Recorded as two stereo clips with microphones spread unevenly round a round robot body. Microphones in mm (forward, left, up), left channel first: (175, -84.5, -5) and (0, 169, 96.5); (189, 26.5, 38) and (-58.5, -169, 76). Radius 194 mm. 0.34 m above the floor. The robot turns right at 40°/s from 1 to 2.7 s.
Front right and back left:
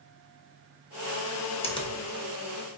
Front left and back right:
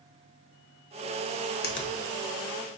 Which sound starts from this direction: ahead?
A finger snap, at 1.6 s.